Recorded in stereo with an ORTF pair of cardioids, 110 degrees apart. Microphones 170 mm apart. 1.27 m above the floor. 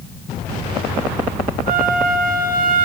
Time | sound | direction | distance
1.7 | a flute | 55° right | 0.7 m